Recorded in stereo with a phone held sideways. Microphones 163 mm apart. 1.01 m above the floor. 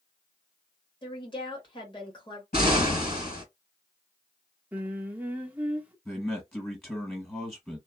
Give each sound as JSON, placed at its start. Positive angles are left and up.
{"t": 1.0, "sound": "a woman speaking", "side_deg": 30, "distance_m": 1.5}
{"t": 2.5, "sound": "an explosion", "side_deg": 75, "distance_m": 2.0}
{"t": 4.7, "sound": "singing", "side_deg": -10, "distance_m": 0.6}
{"t": 6.0, "sound": "a man speaking", "side_deg": 15, "distance_m": 1.4}